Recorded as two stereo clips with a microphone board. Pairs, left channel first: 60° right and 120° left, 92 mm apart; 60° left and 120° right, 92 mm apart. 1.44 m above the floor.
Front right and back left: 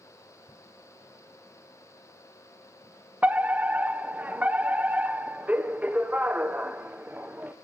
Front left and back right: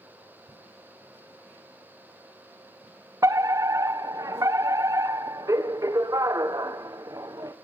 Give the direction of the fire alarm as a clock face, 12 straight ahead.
6 o'clock.